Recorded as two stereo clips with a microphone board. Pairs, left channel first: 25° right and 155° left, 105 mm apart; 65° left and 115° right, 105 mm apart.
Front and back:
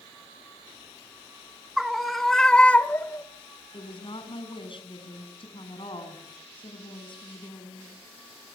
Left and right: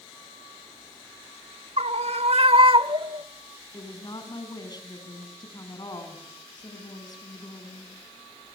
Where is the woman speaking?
15° left, 5.5 m.